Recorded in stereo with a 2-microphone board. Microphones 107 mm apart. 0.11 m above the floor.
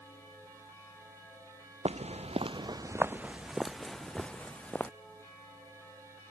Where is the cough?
I don't hear a cough.